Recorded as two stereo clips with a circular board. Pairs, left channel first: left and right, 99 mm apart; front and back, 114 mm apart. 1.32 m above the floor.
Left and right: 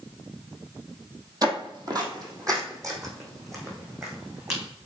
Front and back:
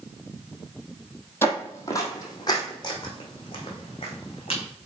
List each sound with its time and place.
1.4 s footsteps: 65° right, 2.0 m; by 4.6 s 35° right, 4 m